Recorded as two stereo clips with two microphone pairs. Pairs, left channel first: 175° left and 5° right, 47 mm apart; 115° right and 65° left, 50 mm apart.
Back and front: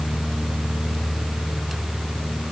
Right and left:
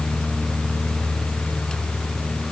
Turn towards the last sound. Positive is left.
No sound to turn to.